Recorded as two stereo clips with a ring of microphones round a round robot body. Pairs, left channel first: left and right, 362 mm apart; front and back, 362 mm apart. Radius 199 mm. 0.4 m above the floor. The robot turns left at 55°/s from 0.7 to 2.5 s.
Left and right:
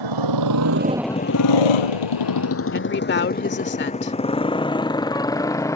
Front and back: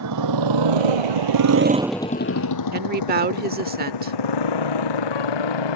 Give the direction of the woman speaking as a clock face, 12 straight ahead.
8 o'clock.